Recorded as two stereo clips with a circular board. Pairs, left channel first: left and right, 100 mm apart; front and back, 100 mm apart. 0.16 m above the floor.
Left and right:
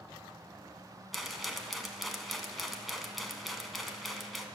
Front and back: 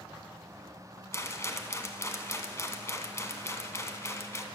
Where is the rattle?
Straight ahead, 0.9 m.